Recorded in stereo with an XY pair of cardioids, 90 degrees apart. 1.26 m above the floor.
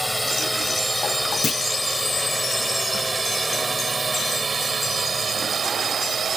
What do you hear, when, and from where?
0.0 s a drone: straight ahead; by 6.4 s 55° right
1.4 s a clunk: 45° left